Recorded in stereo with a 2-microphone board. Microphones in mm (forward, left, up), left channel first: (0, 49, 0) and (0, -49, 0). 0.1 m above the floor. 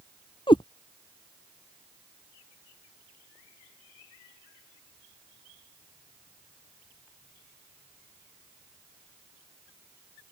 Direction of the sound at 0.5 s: 60° left (ahead or behind).